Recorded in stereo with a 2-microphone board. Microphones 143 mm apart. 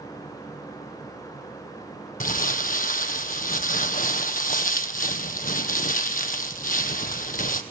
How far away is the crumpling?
About 0.9 m.